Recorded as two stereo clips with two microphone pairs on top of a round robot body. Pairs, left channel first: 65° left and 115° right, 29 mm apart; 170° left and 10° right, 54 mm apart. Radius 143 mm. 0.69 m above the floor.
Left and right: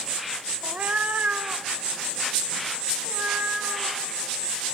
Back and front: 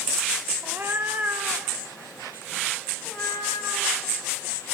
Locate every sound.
0.6 s a cat meowing: 55° right, 0.7 m; by 4.1 s 85° right, 4 m